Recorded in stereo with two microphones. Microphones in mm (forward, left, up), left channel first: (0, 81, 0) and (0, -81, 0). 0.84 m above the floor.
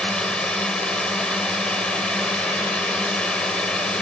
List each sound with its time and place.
0.0 s a drone: 5° left (ahead or behind)